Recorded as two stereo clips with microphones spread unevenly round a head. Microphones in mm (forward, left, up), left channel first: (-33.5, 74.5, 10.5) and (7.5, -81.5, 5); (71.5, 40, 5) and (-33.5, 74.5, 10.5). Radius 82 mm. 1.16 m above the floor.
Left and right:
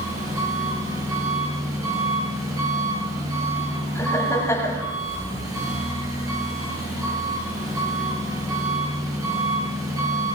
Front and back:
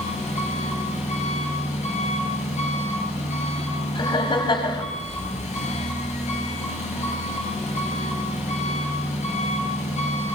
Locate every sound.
0.0 s an engine running: 5° right, 9 m
4.0 s laughter: 30° left, 6.5 m